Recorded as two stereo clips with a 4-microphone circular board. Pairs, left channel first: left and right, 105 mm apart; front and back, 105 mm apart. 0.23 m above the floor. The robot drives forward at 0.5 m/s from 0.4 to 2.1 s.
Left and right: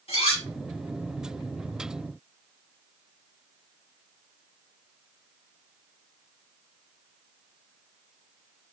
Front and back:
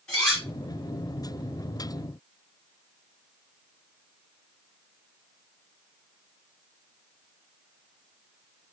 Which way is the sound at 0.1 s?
80° left.